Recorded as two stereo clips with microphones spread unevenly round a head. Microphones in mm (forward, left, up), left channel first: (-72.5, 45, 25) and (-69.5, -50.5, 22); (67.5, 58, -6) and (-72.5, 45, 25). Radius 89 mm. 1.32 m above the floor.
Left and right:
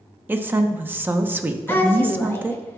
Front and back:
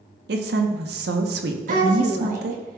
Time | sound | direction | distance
0.3 | a woman speaking | 160° right | 0.9 m
1.7 | a woman speaking | 160° left | 2 m